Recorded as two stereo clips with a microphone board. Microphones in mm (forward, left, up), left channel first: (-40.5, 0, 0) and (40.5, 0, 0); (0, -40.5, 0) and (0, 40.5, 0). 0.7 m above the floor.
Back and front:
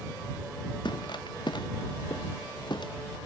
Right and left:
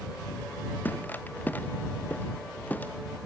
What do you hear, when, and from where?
0.8 s footsteps: 160° right